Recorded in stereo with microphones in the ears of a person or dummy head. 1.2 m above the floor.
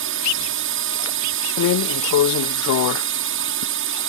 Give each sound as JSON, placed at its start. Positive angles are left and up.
{"t": 0.0, "sound": "a drone", "side_deg": -60}
{"t": 1.6, "sound": "a drawer", "side_deg": 70}